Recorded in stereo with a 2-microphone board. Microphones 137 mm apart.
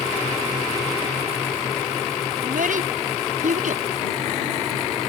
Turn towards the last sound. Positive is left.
turn(degrees=-70)  # may be behind; listen again after turning